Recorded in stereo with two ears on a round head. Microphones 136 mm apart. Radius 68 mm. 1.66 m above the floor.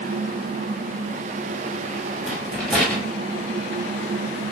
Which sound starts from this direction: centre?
A rattle, at 2.2 s.